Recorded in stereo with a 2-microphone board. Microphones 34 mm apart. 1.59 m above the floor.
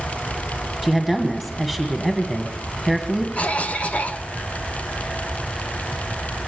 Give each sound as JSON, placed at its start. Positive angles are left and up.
{"t": 0.8, "sound": "a woman speaking", "side_deg": 20, "distance_m": 1.7}
{"t": 3.4, "sound": "a cough", "side_deg": 35, "distance_m": 1.1}